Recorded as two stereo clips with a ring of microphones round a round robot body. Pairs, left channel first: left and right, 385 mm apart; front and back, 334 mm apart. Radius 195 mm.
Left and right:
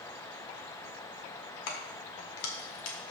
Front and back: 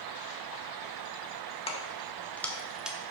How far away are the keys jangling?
About 1.7 m.